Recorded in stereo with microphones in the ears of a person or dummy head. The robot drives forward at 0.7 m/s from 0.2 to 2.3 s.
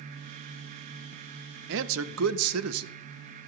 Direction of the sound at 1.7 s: 65° right (ahead or behind).